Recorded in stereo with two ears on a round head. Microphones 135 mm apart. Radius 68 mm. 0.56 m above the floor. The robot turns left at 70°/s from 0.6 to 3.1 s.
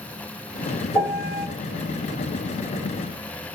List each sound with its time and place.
0.9 s a piano: 175° left, 1.4 m; by 1.5 s 140° left, 1.4 m